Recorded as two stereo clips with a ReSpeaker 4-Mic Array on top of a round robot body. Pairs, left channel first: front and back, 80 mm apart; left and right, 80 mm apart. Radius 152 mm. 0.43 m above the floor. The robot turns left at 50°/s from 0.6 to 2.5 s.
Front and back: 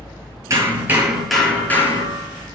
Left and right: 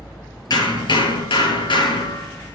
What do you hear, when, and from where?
0.5 s hammering: 130° left, 8 m; by 2.6 s 35° left, 8 m